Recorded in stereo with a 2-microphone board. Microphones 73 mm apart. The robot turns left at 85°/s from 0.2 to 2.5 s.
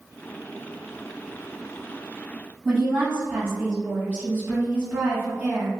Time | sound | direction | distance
2.6 | a woman speaking | 10° right (ahead or behind) | 1.3 m